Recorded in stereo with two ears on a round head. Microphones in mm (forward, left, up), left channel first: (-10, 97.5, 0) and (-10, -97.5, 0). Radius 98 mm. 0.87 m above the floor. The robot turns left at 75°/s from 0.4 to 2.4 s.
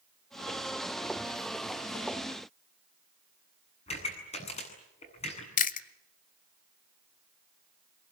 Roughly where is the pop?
Left.